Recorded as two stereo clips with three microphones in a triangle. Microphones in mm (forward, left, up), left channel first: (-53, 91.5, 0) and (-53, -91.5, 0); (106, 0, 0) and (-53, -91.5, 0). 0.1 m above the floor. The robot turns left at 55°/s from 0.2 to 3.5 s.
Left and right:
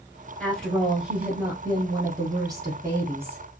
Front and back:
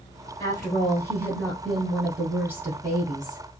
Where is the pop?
I don't hear a pop.